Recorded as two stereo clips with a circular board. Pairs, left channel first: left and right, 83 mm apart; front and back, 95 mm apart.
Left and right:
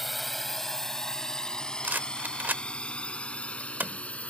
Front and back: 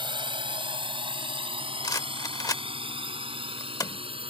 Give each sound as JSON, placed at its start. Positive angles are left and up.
{"t": 0.0, "sound": "a drone", "azimuth_deg": 180}
{"t": 1.8, "sound": "a rattle", "azimuth_deg": -30}